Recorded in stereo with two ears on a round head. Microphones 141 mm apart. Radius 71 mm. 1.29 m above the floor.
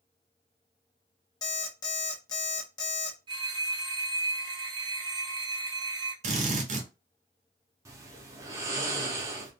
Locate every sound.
1.4 s an alarm clock: 25° left (ahead or behind), 0.7 m
3.3 s a phone ringing: 30° right (ahead or behind), 0.7 m
6.2 s a drill: 45° right (ahead or behind), 0.8 m
7.8 s snoring: 20° right (ahead or behind), 0.6 m